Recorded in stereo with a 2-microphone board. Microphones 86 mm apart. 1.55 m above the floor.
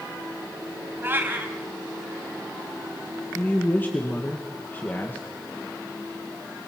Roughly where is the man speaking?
Left.